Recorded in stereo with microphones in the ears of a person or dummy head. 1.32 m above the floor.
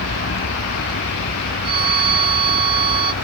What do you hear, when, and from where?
0.0 s a vehicle: 55° left (ahead or behind)
1.6 s a violin: 30° right (ahead or behind)